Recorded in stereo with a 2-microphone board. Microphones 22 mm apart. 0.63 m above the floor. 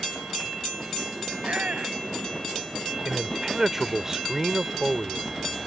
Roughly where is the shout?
Right.